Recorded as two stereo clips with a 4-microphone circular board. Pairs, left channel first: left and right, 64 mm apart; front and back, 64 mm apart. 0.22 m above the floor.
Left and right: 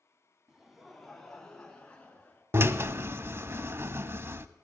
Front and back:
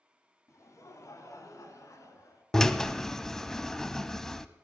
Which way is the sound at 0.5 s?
10° right.